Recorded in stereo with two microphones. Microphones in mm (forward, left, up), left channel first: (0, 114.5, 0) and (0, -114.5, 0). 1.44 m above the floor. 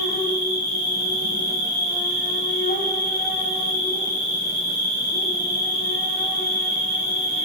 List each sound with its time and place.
0.0 s an insect: 40° left (ahead or behind), 1.4 m